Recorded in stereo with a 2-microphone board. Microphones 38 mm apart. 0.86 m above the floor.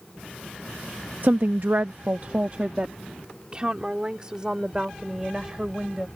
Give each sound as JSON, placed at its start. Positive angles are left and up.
{"t": 1.2, "sound": "a woman speaking", "side_deg": -55}